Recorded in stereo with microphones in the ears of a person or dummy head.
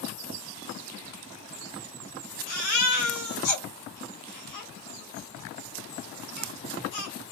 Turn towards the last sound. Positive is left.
turn(degrees=60)  # may be behind; listen again after turning